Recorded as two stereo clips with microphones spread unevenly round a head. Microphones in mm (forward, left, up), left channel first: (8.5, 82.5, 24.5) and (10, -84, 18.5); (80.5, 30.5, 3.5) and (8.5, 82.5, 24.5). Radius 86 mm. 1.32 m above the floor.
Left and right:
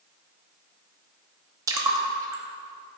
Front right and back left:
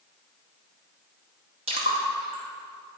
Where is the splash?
160° right, 0.7 m.